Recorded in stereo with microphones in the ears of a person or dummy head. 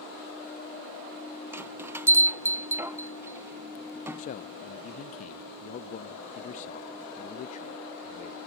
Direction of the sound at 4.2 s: 45° left (ahead or behind).